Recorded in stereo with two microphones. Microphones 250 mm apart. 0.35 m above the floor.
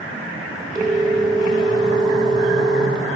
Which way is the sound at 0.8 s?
15° right (ahead or behind).